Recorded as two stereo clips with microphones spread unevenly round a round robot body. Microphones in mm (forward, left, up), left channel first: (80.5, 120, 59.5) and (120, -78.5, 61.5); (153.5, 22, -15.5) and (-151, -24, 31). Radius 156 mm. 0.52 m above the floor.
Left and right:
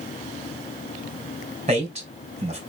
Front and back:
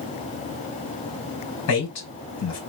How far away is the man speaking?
About 3.5 m.